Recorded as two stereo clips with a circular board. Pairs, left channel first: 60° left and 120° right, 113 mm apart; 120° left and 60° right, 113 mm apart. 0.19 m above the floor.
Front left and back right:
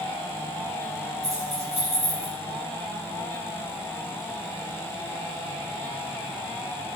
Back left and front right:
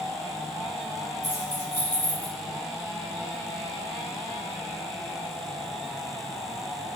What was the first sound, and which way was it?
Keys jangling, 115° right.